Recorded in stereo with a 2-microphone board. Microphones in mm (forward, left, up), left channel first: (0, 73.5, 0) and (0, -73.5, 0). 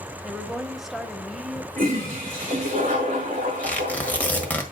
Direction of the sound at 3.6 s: 10° left (ahead or behind).